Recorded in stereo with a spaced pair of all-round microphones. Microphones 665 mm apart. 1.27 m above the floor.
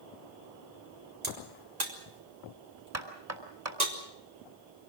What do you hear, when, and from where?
1.2 s a crack: 75° right (ahead or behind), 3 m
2.9 s knocking: 20° right (ahead or behind), 3 m